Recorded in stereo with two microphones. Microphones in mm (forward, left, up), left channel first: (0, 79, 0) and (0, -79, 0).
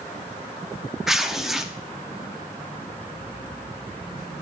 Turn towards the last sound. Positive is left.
turn(degrees=-5)  # may be behind; listen again after turning